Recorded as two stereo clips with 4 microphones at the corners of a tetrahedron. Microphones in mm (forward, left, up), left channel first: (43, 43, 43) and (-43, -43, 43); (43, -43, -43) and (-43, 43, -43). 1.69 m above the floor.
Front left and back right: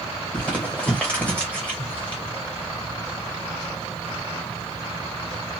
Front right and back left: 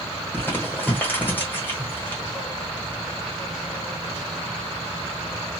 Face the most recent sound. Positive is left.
turn(degrees=-10)